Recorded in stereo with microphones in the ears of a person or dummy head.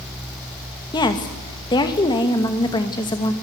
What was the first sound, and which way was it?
A woman speaking, 25° left (ahead or behind).